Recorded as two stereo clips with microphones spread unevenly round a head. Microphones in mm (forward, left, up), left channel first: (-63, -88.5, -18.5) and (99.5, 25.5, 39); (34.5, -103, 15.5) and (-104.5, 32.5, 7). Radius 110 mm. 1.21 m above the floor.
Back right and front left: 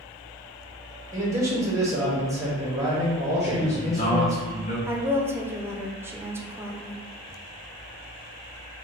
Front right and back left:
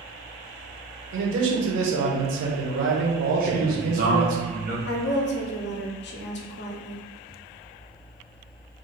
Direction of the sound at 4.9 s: 55° right.